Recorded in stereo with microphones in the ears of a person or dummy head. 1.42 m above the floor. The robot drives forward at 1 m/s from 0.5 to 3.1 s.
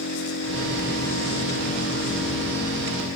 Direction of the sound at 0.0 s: 85° left.